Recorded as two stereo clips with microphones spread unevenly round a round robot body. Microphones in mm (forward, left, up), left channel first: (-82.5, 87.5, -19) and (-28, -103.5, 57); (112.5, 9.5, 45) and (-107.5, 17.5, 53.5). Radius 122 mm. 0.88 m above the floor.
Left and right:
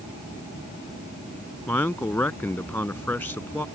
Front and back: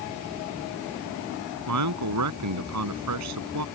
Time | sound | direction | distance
1.7 | a man speaking | 170° right | ?